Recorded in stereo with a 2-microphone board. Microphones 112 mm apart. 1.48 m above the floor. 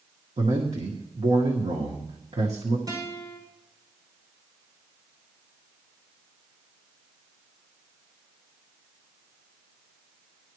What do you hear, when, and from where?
0.4 s a man speaking: 70° right (ahead or behind), 1.7 m
2.9 s a guitar: 30° right (ahead or behind), 5.5 m